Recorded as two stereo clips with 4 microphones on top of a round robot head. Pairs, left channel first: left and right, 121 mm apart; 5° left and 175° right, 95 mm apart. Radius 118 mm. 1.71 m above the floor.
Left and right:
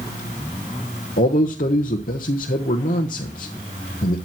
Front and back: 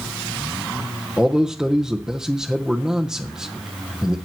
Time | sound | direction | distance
1.2 | a man speaking | 105° left | 0.7 m